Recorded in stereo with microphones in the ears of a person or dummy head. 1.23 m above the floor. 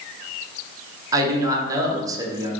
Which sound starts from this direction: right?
A man speaking, at 1.1 s.